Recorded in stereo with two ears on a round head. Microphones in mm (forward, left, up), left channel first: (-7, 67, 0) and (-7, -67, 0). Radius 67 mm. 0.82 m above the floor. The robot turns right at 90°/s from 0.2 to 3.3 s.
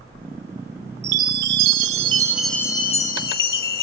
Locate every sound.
1.0 s a chime: 130° right, 1.1 m; by 3.8 s 75° left, 1.1 m